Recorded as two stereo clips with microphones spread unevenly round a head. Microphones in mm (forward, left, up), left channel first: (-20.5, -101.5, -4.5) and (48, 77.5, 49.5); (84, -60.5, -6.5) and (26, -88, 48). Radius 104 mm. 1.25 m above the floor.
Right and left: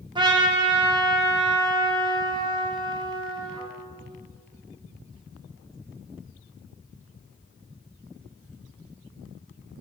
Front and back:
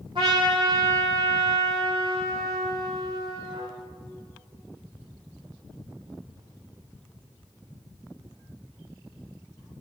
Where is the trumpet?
140° left, 1.8 m.